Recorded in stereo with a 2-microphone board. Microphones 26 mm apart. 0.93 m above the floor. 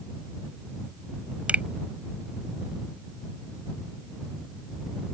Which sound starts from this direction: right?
A finger snap, at 1.5 s.